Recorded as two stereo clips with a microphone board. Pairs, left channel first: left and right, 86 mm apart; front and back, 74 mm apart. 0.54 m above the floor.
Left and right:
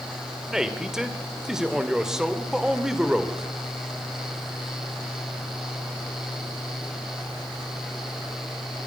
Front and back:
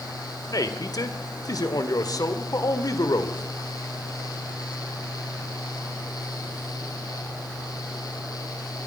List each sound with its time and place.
0.5 s a man speaking: 5° right, 1.9 m